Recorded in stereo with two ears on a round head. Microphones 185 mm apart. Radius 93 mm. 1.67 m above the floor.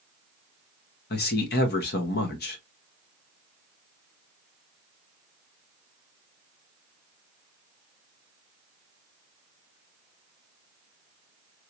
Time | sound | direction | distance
1.1 | a man speaking | 50° left (ahead or behind) | 0.9 m